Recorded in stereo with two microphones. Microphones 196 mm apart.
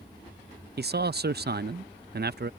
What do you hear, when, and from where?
0.8 s a man speaking: 55° right (ahead or behind)